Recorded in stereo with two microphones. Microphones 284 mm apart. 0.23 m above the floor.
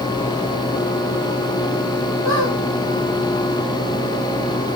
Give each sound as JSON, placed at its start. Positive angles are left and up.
{"t": 2.2, "sound": "a squeak", "side_deg": -70, "distance_m": 2.5}